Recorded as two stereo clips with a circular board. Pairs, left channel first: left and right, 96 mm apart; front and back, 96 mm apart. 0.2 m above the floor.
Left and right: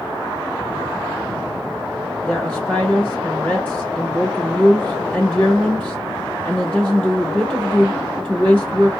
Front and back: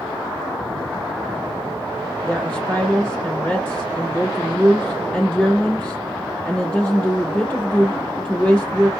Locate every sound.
2.3 s a woman speaking: 50° left, 1.3 m